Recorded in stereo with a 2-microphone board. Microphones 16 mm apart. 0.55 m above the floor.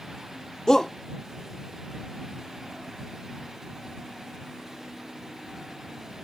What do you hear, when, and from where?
0.7 s a shout: 35° left (ahead or behind)